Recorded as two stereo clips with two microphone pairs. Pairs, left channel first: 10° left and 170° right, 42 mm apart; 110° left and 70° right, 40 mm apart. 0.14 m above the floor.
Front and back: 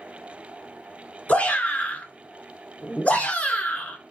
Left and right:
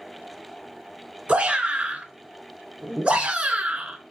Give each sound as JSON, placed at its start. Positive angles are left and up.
{"t": 1.3, "sound": "a shout", "azimuth_deg": -25, "distance_m": 2.0}